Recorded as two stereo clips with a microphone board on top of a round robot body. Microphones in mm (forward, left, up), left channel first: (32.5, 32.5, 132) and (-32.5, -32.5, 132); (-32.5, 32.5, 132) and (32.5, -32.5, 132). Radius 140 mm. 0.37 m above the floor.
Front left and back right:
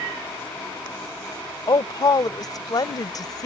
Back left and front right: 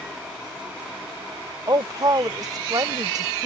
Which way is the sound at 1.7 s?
Straight ahead.